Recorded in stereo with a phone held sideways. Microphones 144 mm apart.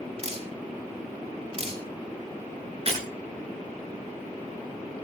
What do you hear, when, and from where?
0.2 s dripping: 45° right (ahead or behind), 3 m
2.9 s breaking glass: 45° right (ahead or behind), 9.5 m